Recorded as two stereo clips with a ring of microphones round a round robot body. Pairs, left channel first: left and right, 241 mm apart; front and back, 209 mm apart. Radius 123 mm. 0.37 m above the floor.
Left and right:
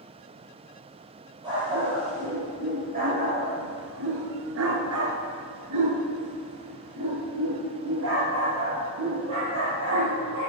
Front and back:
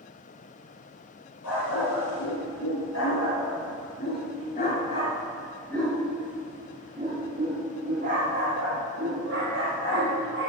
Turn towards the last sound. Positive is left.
turn(degrees=-135)